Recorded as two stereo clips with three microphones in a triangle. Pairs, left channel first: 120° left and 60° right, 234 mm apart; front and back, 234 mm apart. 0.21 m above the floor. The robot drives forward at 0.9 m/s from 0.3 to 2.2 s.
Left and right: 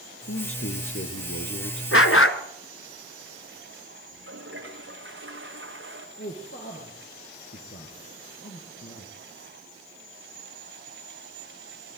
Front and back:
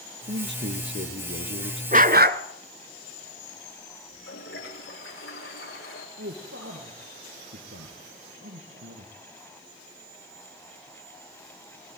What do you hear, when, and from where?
0.3 s a man speaking: 140° left, 4.5 m; by 1.8 s 150° left, 5.5 m
1.9 s a dog barking: 125° left, 1.3 m; by 2.4 s 135° left, 1.5 m
4.1 s a toilet flushing: 30° right, 10 m
6.2 s a man speaking: 155° left, 5 m